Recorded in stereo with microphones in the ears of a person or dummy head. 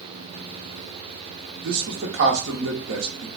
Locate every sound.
1.6 s a man speaking: 70° right (ahead or behind), 0.9 m